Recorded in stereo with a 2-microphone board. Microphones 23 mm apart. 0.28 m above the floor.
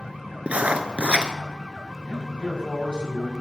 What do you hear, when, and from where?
0.5 s writing: 70° right (ahead or behind), 0.6 m
2.1 s a man speaking: 45° left (ahead or behind), 1.8 m